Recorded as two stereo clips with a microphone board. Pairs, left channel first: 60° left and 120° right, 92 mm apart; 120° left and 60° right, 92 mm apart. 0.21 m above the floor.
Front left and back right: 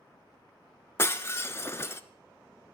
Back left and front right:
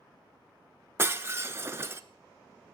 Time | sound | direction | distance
1.0 | breaking glass | straight ahead | 0.8 m